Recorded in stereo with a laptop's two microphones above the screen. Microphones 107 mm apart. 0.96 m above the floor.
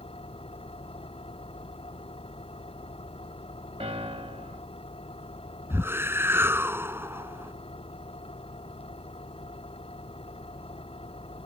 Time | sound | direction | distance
0.0 | an engine running | 65° left (ahead or behind) | ?
3.8 | a piano | 65° right (ahead or behind) | ?
5.7 | a whoosh | 20° right (ahead or behind) | ?